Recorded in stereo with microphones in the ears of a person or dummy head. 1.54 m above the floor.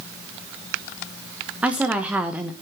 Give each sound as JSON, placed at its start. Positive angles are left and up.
{"t": 1.6, "sound": "a woman speaking", "side_deg": -5, "distance_m": 1.2}